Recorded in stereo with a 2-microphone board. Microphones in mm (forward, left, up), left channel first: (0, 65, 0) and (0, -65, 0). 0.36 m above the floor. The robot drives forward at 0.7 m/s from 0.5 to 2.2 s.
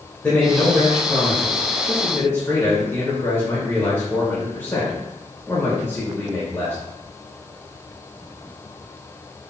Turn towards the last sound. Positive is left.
turn(degrees=20)  # may be behind; listen again after turning